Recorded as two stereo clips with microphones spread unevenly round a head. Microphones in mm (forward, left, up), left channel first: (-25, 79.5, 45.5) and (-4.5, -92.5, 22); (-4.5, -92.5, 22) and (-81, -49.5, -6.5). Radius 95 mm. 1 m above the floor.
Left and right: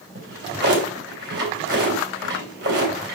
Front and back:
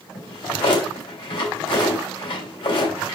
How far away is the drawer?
About 3.5 m.